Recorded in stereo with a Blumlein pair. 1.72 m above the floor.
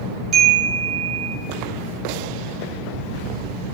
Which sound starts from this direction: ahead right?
A chime, at 0.3 s.